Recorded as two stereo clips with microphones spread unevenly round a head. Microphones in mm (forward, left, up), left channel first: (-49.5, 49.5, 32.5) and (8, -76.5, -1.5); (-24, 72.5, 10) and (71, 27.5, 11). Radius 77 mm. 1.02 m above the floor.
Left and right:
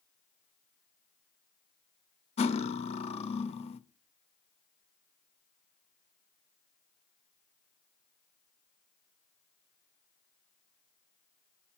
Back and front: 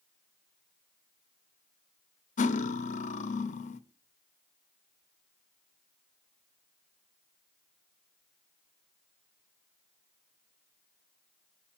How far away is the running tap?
No running tap in this recording.